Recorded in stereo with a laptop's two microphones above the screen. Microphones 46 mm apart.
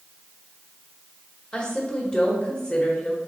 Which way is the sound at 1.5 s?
25° left (ahead or behind).